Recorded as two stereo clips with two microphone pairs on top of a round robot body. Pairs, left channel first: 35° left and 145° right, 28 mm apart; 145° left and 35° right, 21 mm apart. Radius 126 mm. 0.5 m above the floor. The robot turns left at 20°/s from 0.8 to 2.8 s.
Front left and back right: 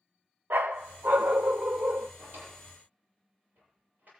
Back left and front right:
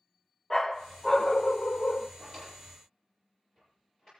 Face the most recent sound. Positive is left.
turn(degrees=-150)